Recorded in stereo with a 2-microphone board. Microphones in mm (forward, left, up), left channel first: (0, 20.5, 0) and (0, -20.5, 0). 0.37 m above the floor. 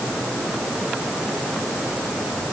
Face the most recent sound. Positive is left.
No sound to turn to.